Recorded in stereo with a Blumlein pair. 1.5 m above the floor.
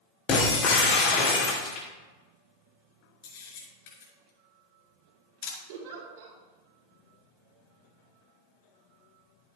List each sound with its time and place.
0.3 s breaking glass: 35° left, 2.5 m
3.2 s a camera shutter: 50° left, 4.5 m
5.7 s a giggle: 50° right, 3 m